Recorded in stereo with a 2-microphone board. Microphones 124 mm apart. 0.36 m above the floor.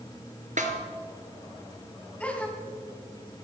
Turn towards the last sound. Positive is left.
turn(degrees=10)  # may be behind; listen again after turning